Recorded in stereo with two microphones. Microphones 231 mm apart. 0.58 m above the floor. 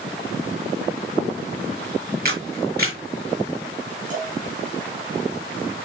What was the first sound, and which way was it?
A camera shutter, 45° right (ahead or behind).